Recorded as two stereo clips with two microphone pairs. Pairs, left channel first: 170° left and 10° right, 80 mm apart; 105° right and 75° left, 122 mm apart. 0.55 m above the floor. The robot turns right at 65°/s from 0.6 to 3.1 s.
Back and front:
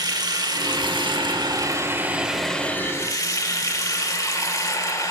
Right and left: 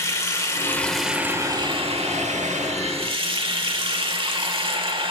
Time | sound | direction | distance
0.0 | running water | 40° right | 1.0 m